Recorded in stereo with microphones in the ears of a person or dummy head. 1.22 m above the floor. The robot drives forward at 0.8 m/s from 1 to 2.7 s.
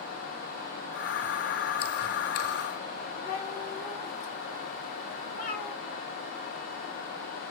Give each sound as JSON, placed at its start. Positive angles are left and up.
{"t": 3.2, "sound": "a cat meowing", "side_deg": 50, "distance_m": 2.5}